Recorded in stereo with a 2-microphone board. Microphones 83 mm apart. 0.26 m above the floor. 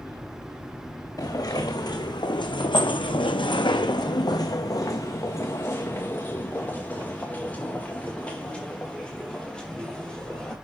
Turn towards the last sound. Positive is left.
turn(degrees=10)  # may be behind; listen again after turning